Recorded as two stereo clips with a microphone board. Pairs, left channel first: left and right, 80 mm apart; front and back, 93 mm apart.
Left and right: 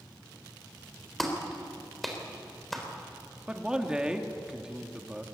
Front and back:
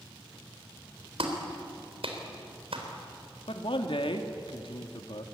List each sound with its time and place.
1.2 s a clap: straight behind, 3.5 m
3.5 s a man speaking: 10° right, 1.9 m